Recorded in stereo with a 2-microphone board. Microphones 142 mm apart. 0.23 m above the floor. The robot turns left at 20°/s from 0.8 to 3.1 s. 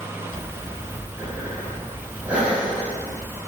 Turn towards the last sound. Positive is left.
turn(degrees=-5)  # may be behind; listen again after turning